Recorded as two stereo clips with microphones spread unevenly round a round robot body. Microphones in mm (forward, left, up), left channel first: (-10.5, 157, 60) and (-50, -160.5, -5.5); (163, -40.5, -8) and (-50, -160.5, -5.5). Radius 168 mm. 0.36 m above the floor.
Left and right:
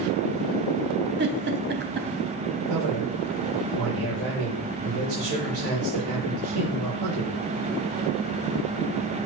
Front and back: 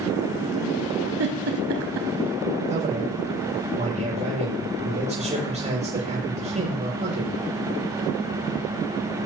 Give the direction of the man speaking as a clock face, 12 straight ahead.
3 o'clock.